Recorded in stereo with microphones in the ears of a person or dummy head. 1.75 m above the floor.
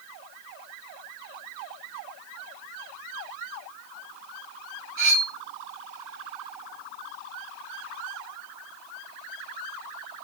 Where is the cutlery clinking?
65° right (ahead or behind), 1.9 m.